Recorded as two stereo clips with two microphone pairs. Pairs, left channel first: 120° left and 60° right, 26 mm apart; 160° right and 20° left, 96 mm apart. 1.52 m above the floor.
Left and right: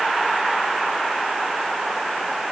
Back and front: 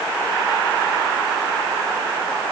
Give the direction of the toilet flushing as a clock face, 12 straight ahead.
No toilet flushing in this recording.